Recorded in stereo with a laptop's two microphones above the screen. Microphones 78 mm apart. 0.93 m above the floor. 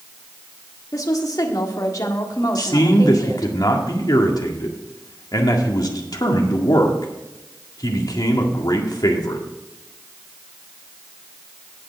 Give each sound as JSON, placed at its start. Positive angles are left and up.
{"t": 0.9, "sound": "a woman speaking", "side_deg": 50, "distance_m": 1.7}
{"t": 2.5, "sound": "a man speaking", "side_deg": 55, "distance_m": 1.9}